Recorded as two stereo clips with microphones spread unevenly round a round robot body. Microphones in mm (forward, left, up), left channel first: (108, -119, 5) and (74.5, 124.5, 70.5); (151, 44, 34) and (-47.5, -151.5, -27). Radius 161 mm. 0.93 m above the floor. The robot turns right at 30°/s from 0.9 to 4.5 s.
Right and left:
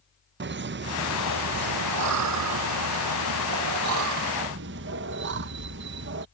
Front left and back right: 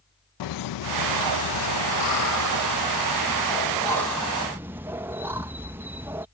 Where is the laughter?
45° left; by 6.3 s 150° left.